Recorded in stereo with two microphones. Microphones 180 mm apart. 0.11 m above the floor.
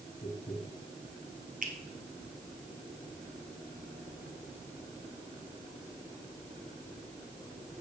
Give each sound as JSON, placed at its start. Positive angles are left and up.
{"t": 0.2, "sound": "tapping", "side_deg": 40, "distance_m": 5.5}
{"t": 1.6, "sound": "a finger snap", "side_deg": -55, "distance_m": 2.5}